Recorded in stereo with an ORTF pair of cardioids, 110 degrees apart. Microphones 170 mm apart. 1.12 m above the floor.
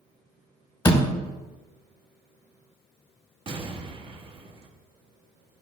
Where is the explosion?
35° right, 1.4 m.